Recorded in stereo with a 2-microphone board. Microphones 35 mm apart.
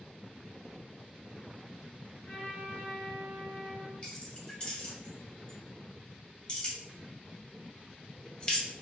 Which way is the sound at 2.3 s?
40° left (ahead or behind).